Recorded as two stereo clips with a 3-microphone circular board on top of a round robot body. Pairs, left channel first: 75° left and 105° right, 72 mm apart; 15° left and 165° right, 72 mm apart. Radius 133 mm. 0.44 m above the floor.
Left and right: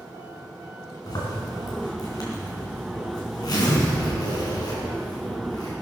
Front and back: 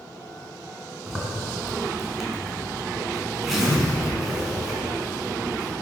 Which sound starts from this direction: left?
A zipper, at 1.1 s.